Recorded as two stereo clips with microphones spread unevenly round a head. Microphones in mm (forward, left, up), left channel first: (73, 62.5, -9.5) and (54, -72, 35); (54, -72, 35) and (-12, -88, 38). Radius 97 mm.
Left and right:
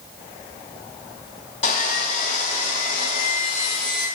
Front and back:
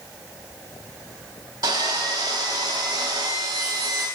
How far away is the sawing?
About 5.5 m.